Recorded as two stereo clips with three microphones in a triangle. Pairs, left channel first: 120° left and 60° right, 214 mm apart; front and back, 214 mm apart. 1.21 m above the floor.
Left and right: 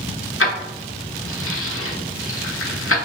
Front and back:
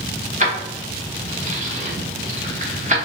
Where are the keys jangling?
125° left, 0.8 m.